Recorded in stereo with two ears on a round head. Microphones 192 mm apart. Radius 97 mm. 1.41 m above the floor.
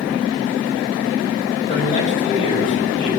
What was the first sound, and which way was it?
A man speaking, 35° left (ahead or behind).